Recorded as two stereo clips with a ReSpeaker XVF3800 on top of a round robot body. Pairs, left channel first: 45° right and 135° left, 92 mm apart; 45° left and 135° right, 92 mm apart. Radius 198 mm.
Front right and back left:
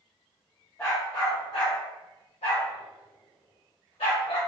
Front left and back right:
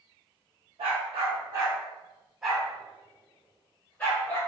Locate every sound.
0.8 s a dog barking: 115° right, 0.8 m; by 4.4 s 25° right, 1.7 m